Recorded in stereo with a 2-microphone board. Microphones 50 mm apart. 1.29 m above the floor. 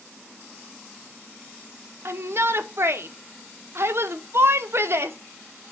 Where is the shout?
50° right (ahead or behind), 0.7 m.